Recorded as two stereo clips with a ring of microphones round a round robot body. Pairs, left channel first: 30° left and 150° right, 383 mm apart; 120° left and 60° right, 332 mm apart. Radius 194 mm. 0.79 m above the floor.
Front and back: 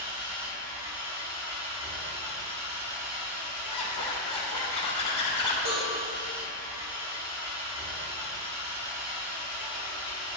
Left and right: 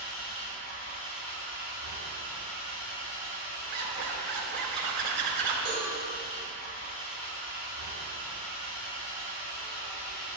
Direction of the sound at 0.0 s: 160° left.